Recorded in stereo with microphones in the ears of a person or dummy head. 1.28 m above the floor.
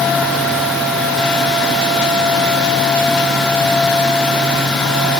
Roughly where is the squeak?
No squeak in this recording.